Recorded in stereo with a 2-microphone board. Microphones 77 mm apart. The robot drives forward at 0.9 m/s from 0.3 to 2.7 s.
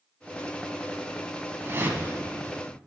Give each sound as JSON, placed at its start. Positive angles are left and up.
{"t": 1.6, "sound": "a whoosh", "side_deg": -30, "distance_m": 1.0}